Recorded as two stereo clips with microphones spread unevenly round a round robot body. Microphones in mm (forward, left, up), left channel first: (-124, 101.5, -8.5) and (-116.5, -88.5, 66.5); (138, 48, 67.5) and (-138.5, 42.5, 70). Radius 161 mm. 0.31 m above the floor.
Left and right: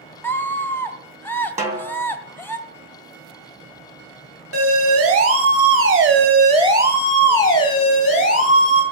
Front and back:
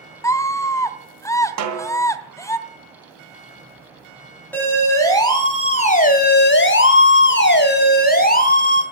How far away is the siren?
About 3.5 m.